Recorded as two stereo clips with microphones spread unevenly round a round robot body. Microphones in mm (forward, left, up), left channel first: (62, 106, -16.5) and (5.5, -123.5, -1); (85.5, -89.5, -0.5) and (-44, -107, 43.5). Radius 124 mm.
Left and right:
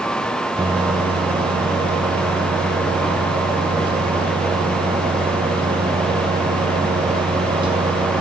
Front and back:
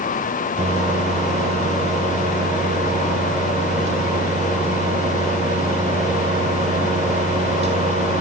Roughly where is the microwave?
Behind.